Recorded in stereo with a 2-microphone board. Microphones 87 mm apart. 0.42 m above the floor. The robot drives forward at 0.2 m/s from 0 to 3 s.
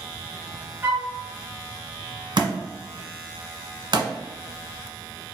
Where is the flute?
35° right (ahead or behind), 1.7 m.